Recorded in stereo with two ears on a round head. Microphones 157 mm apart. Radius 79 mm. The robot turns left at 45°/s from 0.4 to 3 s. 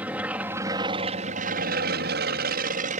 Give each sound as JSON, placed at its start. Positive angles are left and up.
{"t": 0.0, "sound": "an aircraft", "azimuth_deg": -10}